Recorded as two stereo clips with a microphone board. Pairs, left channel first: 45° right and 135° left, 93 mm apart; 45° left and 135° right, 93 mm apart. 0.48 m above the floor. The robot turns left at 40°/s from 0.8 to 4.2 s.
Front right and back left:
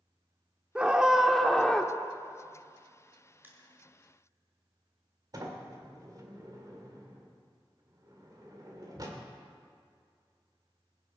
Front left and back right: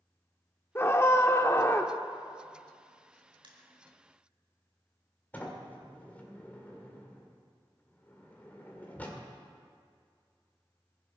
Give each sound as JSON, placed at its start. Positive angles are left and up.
{"t": 0.8, "sound": "a scream", "azimuth_deg": 70, "distance_m": 0.9}
{"t": 3.4, "sound": "crushing", "azimuth_deg": -160, "distance_m": 1.7}
{"t": 5.3, "sound": "a sliding door", "azimuth_deg": 110, "distance_m": 1.8}